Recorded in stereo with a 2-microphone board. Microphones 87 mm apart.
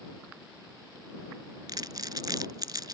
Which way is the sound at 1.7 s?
55° right (ahead or behind).